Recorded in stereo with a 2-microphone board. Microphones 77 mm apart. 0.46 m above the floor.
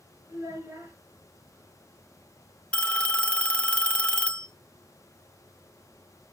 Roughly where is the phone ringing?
Centre.